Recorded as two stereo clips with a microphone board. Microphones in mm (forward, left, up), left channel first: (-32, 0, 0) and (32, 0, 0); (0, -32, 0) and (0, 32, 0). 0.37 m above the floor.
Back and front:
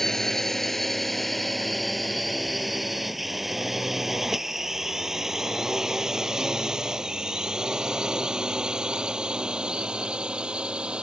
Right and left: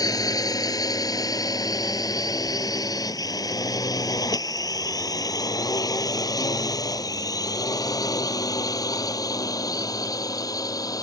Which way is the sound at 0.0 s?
95° right.